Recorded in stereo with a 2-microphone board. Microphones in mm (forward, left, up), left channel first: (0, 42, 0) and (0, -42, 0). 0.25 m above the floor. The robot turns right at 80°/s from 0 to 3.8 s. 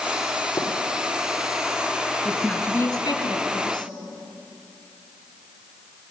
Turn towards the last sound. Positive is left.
turn(degrees=125)